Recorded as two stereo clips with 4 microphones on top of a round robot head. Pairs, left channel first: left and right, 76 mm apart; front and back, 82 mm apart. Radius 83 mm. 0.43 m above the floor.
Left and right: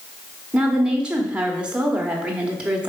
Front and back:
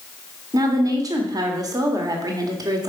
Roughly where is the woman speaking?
Behind.